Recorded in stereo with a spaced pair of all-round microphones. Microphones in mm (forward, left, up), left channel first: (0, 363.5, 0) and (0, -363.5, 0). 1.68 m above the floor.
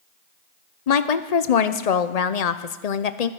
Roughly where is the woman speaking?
Left.